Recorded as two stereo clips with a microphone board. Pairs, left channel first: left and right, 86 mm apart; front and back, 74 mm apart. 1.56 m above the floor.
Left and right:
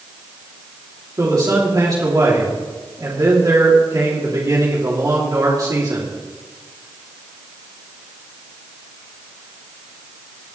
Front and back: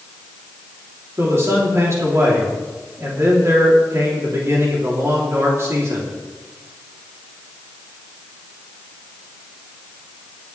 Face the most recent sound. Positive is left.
turn(degrees=-130)